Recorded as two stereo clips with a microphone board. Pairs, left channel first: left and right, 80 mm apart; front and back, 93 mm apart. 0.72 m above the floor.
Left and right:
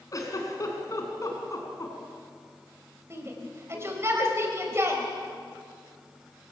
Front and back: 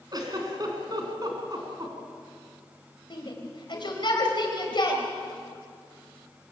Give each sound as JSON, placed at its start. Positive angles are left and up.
{"t": 0.1, "sound": "a giggle", "azimuth_deg": 135, "distance_m": 3.5}
{"t": 3.1, "sound": "a shout", "azimuth_deg": -35, "distance_m": 4.0}